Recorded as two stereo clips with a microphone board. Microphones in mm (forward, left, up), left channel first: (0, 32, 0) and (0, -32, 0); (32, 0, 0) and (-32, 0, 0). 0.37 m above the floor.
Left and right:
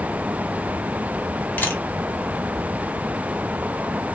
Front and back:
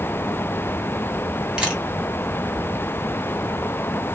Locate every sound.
1.6 s a camera shutter: 120° left, 1.4 m